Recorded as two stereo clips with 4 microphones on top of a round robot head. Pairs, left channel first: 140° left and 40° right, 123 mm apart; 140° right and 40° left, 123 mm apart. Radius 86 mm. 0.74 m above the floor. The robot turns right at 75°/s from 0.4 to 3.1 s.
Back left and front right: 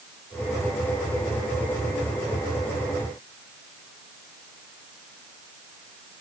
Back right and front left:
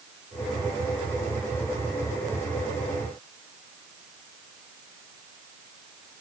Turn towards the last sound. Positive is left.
No sound to turn to.